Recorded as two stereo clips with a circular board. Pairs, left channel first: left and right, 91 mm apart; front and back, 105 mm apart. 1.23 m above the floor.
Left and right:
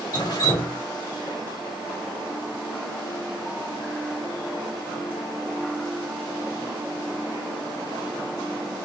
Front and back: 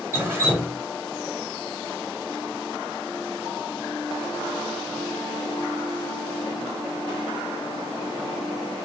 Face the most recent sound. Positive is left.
turn(degrees=120)